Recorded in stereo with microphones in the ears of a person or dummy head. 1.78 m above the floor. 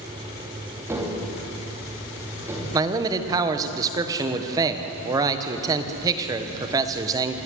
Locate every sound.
0.9 s tapping: 15° right (ahead or behind), 3 m
2.7 s a man speaking: 20° right (ahead or behind), 1.4 m